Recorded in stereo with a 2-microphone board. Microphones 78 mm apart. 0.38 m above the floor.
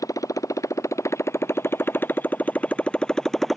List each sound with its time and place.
0.0 s a motorcycle: 45° left (ahead or behind); by 3.6 s centre (ahead or behind)